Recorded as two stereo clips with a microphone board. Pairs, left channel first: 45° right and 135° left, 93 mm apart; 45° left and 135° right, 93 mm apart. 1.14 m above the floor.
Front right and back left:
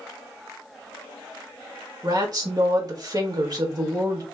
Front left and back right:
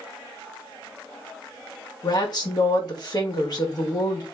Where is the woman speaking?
90° left, 1.8 m.